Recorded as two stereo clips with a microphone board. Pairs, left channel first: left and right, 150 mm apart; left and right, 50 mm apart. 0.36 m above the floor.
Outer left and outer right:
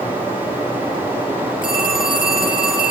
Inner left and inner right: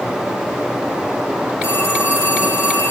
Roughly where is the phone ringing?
Left.